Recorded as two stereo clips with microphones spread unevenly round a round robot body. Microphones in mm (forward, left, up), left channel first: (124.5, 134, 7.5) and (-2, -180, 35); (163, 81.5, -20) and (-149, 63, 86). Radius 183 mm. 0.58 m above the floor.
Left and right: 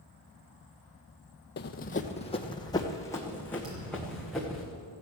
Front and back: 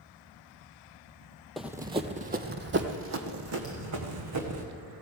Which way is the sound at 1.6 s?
120° left.